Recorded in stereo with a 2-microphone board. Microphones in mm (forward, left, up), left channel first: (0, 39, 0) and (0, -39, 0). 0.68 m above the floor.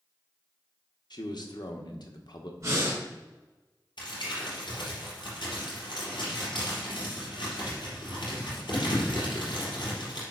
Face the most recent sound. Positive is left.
turn(degrees=85)